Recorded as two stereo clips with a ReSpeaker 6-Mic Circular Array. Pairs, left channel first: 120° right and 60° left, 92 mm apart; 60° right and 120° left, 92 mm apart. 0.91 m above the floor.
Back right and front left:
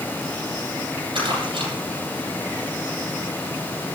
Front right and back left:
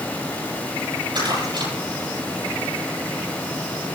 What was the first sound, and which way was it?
Crumpling, 85° left.